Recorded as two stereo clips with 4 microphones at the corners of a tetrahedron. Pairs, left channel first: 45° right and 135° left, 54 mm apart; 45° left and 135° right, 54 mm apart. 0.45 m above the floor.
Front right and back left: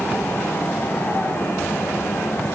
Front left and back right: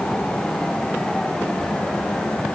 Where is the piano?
No piano in this recording.